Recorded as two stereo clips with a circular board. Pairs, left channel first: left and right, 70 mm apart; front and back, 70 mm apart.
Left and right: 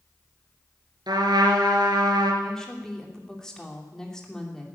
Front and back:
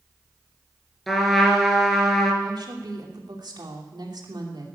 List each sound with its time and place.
1.1 s a trumpet: 85° right, 3 m
2.4 s a woman speaking: 170° left, 2.5 m